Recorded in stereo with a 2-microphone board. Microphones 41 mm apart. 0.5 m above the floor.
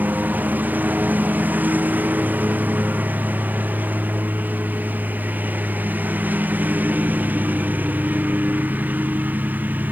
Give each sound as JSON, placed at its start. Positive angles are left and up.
{"t": 0.0, "sound": "a lawn mower", "side_deg": -45}